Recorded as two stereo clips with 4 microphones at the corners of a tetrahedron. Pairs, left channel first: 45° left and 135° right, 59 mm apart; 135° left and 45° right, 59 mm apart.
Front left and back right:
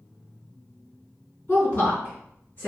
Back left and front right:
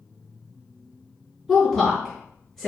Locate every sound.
1.5 s a woman speaking: 45° left, 1.8 m